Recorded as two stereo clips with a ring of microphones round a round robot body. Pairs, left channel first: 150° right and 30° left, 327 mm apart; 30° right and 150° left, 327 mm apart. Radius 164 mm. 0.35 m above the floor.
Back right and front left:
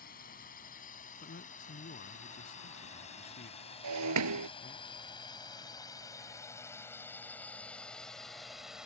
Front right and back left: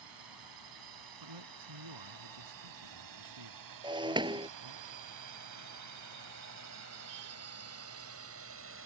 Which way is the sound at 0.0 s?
145° left.